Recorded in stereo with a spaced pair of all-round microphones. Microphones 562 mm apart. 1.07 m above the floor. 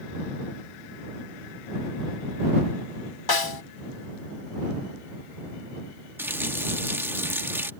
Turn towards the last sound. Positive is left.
turn(degrees=-5)  # may be behind; listen again after turning